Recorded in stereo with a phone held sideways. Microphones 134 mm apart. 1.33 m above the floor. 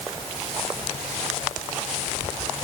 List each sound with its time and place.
Only background noise.